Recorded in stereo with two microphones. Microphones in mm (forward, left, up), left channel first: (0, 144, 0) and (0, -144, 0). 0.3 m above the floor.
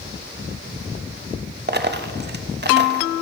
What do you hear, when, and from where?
1.7 s a dropped coin: 35° right (ahead or behind), 0.6 m